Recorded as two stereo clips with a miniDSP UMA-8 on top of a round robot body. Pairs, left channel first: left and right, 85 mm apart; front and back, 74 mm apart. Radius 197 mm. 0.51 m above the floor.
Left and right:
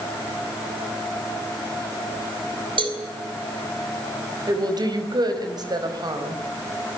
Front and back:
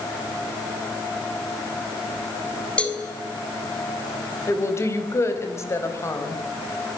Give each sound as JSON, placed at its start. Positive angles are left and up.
{"t": 2.8, "sound": "a cowbell", "azimuth_deg": -75, "distance_m": 4.5}
{"t": 4.5, "sound": "a woman speaking", "azimuth_deg": -50, "distance_m": 4.5}